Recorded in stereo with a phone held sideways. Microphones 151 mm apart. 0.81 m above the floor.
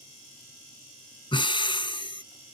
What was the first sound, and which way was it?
Breathing, 35° left (ahead or behind).